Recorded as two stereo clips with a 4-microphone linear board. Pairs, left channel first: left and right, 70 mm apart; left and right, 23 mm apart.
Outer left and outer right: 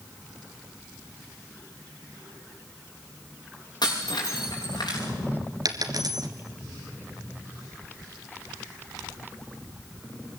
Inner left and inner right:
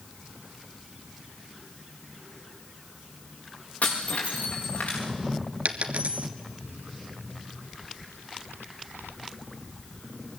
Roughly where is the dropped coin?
Right.